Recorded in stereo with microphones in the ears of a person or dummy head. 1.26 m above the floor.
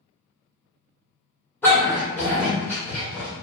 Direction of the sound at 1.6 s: 10° left (ahead or behind).